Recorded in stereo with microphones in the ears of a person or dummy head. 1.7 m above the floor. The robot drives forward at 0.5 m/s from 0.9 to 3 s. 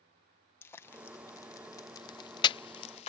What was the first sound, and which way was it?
Frying, 15° left (ahead or behind).